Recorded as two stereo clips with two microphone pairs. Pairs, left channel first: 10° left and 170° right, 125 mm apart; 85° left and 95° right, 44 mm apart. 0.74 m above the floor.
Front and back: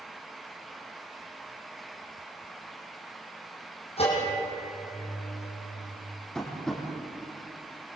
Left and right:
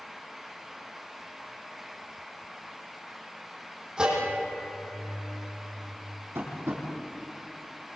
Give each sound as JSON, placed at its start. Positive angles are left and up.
{"t": 4.0, "sound": "a bell", "azimuth_deg": -25, "distance_m": 8.0}
{"t": 6.3, "sound": "tapping", "azimuth_deg": -75, "distance_m": 7.0}